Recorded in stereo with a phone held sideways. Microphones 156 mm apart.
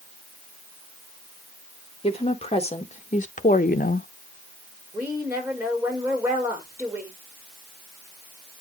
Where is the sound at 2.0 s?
40° left (ahead or behind), 1.6 m; by 4.1 s 70° left (ahead or behind), 0.5 m.